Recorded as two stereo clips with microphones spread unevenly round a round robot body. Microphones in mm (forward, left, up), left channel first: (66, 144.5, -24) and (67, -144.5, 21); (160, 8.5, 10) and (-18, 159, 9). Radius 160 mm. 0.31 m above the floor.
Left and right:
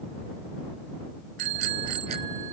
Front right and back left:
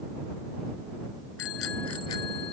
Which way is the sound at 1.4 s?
90° right.